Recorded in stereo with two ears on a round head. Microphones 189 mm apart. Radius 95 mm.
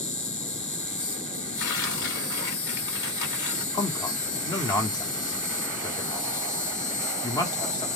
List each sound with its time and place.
0.0 s an insect: 5° left (ahead or behind), 1.3 m
1.6 s tearing paper: 60° left (ahead or behind), 1.7 m
3.7 s a man speaking: 20° left (ahead or behind), 1.0 m